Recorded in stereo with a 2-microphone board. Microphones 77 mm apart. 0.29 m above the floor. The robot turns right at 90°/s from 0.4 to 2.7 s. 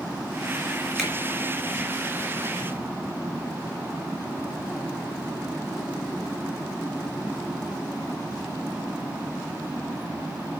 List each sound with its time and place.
1.0 s a finger snap: 5° right (ahead or behind), 2.5 m; by 1.1 s 15° right (ahead or behind), 2.5 m